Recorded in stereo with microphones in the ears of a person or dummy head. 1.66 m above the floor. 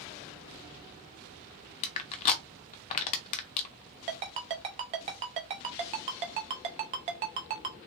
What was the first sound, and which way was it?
Crushing, 25° left (ahead or behind).